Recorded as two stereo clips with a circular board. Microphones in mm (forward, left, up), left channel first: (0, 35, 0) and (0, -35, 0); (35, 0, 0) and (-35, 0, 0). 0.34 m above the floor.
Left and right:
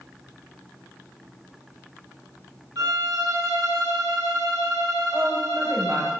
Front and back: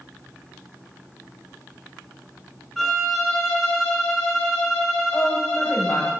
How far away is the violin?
About 3 m.